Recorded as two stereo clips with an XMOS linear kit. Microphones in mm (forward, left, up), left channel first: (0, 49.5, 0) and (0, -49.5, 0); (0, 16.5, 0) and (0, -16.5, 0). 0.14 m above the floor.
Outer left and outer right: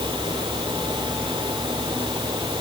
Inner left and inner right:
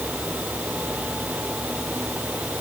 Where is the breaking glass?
No breaking glass in this recording.